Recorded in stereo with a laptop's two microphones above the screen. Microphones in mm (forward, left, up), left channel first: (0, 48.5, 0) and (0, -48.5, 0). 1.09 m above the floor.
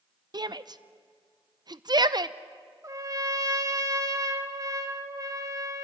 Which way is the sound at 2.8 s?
35° right (ahead or behind).